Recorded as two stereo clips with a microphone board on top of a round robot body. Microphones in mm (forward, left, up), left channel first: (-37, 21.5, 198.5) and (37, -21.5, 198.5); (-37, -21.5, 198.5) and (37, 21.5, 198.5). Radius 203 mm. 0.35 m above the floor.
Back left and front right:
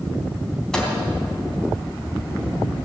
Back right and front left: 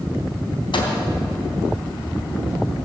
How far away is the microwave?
About 3 m.